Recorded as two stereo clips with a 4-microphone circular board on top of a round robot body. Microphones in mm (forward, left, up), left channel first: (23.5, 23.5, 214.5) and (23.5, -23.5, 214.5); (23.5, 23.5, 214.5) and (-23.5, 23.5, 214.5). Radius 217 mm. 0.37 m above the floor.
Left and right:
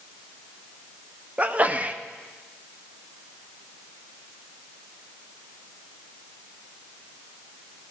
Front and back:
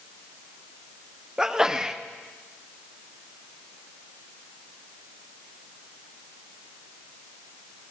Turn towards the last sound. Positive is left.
turn(degrees=-115)